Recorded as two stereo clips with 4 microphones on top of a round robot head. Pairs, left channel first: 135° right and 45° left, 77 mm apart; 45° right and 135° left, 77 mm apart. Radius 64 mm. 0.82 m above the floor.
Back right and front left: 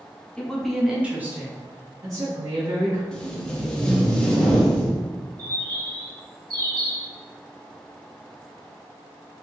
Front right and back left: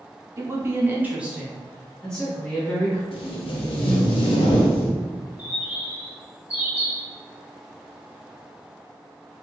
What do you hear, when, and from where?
0.4 s a woman speaking: 155° left, 0.8 m; by 3.0 s 20° left, 1.4 m
3.1 s tape being pulled: 50° right, 0.5 m
5.4 s a bird: 60° left, 1.8 m